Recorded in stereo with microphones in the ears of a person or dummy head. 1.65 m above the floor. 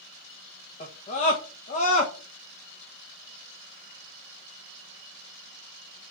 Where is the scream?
40° left (ahead or behind), 1.4 m.